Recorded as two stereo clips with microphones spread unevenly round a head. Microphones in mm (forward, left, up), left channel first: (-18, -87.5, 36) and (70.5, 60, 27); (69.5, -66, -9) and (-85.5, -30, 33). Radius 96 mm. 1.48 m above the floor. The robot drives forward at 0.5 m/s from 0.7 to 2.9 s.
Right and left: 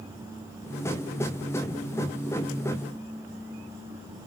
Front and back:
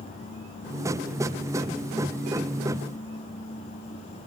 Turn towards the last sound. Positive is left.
No sound to turn to.